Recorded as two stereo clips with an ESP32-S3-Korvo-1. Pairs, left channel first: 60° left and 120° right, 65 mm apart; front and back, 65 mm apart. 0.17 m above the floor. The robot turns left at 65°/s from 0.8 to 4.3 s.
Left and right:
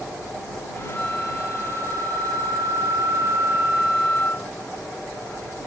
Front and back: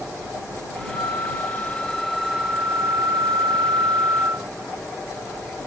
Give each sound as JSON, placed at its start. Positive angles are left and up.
{"t": 0.9, "sound": "a flute", "azimuth_deg": -15}